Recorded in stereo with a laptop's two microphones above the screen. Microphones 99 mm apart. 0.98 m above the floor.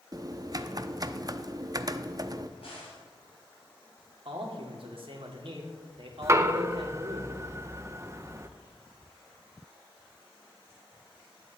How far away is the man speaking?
About 1.9 m.